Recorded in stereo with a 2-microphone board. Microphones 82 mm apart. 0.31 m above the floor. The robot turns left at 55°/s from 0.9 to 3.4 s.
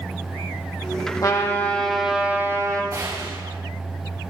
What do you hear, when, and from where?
1.2 s a trumpet: 40° left, 3.5 m; by 2.8 s 45° right, 3.5 m
2.9 s a gunshot: 40° right (ahead or behind), 5.5 m; by 3.6 s 65° right (ahead or behind), 5.5 m